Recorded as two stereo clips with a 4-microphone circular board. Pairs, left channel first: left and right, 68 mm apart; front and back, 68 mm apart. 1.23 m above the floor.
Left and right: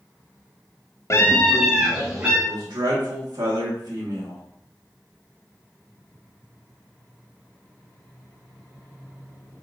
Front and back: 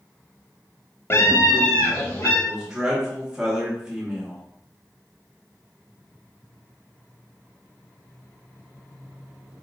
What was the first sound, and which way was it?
A scream, 55° left.